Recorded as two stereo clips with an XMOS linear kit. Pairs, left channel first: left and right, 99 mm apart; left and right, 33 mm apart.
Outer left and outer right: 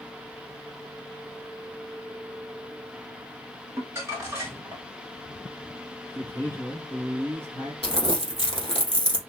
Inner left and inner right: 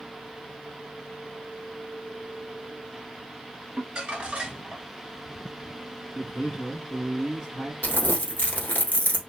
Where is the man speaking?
25° right (ahead or behind), 1.6 m.